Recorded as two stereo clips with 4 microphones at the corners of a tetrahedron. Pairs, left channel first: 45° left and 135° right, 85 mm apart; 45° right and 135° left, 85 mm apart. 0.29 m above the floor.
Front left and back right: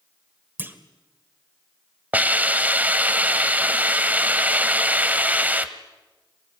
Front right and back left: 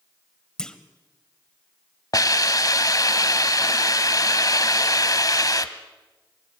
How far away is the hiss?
About 1.1 m.